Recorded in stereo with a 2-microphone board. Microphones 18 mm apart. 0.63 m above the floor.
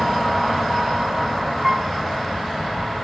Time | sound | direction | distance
1.6 | a piano | 15° right (ahead or behind) | ?